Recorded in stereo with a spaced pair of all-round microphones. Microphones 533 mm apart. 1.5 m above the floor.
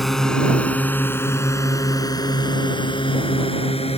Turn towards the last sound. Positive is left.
turn(degrees=10)  # may be behind; listen again after turning